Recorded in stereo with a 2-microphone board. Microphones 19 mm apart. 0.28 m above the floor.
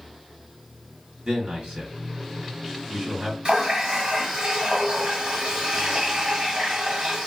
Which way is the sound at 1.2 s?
50° right (ahead or behind).